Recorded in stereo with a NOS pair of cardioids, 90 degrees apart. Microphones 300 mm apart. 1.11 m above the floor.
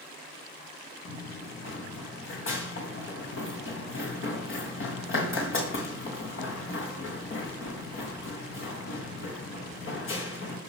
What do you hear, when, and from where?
1.1 s running footsteps: 45° left, 4 m